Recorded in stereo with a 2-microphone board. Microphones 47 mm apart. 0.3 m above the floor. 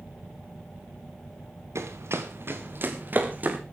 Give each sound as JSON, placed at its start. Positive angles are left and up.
{"t": 1.8, "sound": "running footsteps", "side_deg": -75, "distance_m": 2.5}